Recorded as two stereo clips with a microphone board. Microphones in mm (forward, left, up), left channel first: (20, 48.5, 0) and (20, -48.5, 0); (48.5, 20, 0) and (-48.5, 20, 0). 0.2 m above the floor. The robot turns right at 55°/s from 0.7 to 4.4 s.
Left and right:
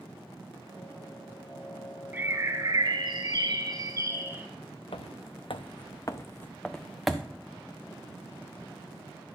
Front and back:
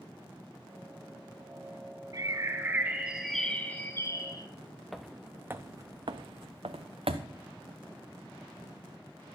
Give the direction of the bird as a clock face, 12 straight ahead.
5 o'clock.